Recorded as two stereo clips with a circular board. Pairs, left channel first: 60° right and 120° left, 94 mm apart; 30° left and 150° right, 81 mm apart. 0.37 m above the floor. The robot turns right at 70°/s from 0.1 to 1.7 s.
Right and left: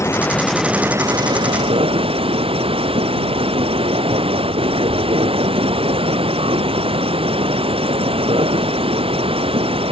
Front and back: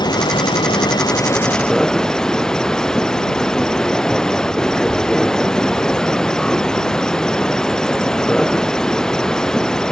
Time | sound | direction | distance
0.0 | an insect | straight ahead | ?